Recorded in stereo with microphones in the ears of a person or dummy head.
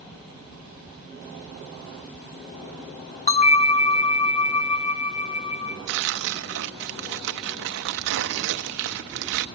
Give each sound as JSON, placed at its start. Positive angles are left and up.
{"t": 3.3, "sound": "a bell", "side_deg": 45, "distance_m": 0.9}
{"t": 5.9, "sound": "tearing paper", "side_deg": -70, "distance_m": 0.8}